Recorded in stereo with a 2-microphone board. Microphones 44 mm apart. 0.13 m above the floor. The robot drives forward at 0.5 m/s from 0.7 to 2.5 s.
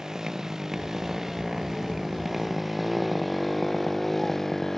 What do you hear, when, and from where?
0.0 s a motorcycle: 10° right (ahead or behind); by 4.8 s 10° left (ahead or behind)